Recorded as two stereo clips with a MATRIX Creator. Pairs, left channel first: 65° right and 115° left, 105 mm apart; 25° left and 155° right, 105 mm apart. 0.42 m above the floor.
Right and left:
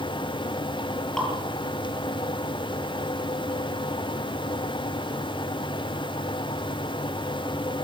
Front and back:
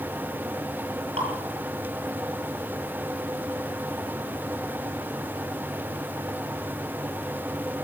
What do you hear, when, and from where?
1.2 s dripping: 155° right, 9.5 m